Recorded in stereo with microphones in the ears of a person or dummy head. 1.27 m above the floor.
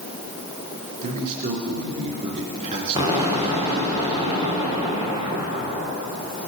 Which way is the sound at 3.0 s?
20° right (ahead or behind).